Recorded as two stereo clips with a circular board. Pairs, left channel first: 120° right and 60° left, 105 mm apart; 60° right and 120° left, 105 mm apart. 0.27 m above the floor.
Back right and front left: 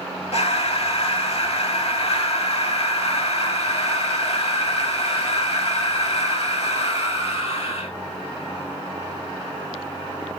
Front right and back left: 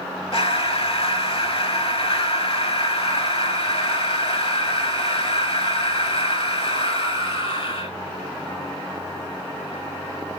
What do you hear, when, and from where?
0.3 s breathing: 95° right, 0.7 m